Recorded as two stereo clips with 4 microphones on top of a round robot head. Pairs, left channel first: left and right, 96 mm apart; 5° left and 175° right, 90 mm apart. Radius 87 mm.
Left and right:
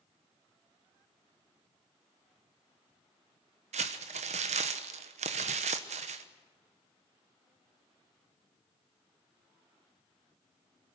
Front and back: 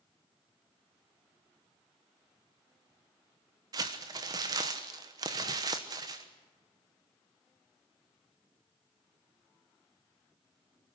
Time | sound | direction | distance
3.7 | crumpling | 115° right | 1.1 m